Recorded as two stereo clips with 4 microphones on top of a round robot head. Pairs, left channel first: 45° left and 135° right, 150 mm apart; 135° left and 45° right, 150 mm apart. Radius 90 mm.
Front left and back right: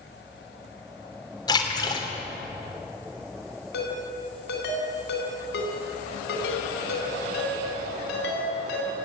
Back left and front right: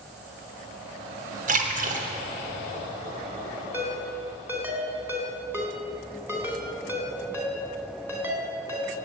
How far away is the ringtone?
About 4 m.